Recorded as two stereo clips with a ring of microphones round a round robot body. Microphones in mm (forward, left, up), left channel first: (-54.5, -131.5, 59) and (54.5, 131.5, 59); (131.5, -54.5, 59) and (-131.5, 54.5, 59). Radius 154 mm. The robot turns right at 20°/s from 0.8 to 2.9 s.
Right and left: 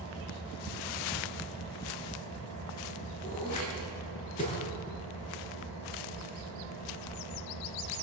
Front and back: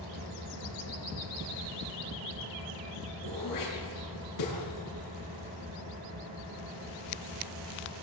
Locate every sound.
0.0 s an engine running: 175° left, 8.5 m; by 8.0 s 140° right, 8.5 m
3.2 s throat clearing: 45° right, 8 m